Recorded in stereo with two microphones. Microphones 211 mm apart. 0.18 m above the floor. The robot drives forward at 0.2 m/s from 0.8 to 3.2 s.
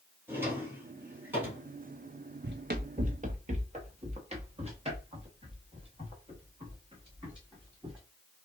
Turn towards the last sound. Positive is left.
turn(degrees=-25)  # may be behind; listen again after turning